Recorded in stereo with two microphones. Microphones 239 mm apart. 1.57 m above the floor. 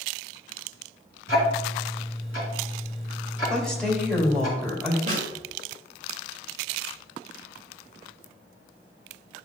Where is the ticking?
60° left (ahead or behind), 3 m.